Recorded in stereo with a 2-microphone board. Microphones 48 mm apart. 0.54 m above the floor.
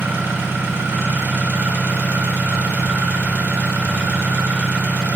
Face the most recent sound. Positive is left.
turn(degrees=-45)  # may be behind; listen again after turning